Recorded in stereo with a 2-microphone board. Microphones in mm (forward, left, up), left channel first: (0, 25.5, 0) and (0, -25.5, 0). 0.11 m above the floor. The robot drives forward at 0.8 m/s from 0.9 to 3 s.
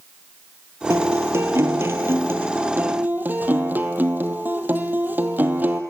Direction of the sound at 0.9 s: 60° right (ahead or behind).